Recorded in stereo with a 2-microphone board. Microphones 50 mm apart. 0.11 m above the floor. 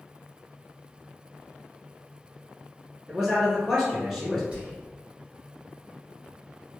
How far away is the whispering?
About 1.9 m.